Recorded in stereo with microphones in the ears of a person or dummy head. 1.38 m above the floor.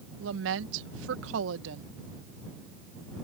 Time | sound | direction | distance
0.2 | a woman speaking | 75° right (ahead or behind) | ?